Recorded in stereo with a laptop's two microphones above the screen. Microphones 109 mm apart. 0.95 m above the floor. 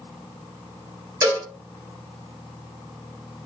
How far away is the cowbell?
About 2.5 m.